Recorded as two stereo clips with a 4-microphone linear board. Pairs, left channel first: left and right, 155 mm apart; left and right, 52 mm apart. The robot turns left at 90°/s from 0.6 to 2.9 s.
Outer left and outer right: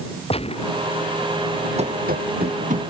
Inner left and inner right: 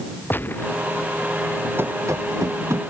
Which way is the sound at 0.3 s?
40° left (ahead or behind).